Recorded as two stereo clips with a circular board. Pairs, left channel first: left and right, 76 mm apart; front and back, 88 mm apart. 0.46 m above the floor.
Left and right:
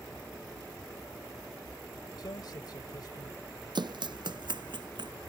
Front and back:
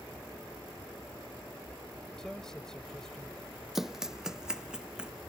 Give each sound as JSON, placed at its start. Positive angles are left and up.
{"t": 2.2, "sound": "a man speaking", "azimuth_deg": 85}
{"t": 3.8, "sound": "running footsteps", "azimuth_deg": -95}